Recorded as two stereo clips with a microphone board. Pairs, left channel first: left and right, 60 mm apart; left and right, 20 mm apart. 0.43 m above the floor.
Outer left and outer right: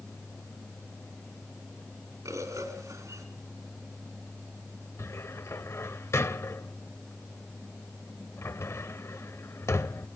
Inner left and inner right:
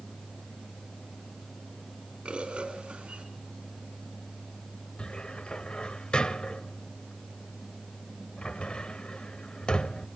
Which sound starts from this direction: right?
A bird, at 2.2 s.